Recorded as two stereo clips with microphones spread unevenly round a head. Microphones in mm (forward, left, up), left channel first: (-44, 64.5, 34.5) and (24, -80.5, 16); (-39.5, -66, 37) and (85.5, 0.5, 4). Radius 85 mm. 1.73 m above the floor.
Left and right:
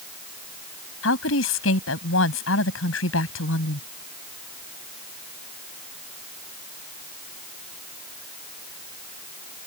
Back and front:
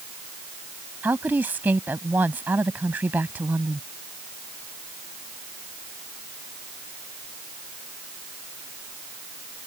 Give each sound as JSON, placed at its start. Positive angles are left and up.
{"t": 1.0, "sound": "a woman speaking", "azimuth_deg": 110}